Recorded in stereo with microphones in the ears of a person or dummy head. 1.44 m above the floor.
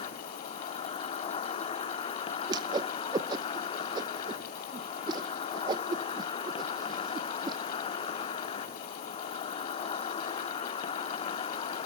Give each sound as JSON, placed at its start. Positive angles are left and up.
{"t": 0.0, "sound": "an insect", "side_deg": 40, "distance_m": 1.7}
{"t": 2.5, "sound": "a whoosh", "side_deg": -25, "distance_m": 0.8}